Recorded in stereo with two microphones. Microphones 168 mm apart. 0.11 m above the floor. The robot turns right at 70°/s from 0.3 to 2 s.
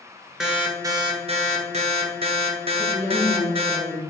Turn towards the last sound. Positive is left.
turn(degrees=-10)  # may be behind; listen again after turning